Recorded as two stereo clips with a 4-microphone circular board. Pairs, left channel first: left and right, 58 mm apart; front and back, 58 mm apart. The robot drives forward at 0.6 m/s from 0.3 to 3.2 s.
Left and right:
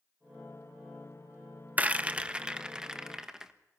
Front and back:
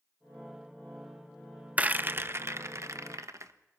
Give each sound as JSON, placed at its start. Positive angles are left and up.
{"t": 1.8, "sound": "a rattle", "azimuth_deg": -130, "distance_m": 0.6}